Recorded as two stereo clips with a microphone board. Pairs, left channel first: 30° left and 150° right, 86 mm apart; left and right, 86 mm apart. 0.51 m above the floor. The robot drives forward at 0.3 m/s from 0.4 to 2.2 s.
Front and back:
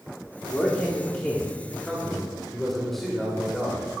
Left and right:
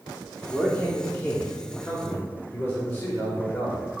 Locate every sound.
0.5 s a man speaking: 55° left, 1.1 m; by 3.8 s 110° left, 1.1 m